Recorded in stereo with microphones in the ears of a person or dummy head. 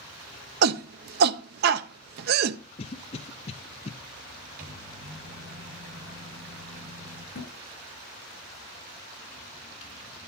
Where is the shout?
60° right (ahead or behind), 0.7 m.